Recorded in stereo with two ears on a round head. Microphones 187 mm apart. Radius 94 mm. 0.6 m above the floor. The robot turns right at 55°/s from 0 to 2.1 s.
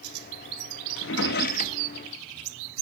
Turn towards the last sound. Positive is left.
turn(degrees=10)  # may be behind; listen again after turning